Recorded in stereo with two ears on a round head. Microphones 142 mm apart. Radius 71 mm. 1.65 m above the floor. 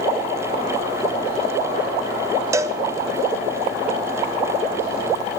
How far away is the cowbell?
About 0.6 m.